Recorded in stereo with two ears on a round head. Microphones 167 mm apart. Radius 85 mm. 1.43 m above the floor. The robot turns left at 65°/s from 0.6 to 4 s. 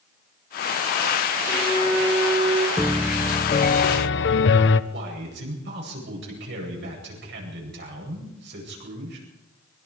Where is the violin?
40° left, 5.5 m; by 2.7 s 40° right, 5.5 m.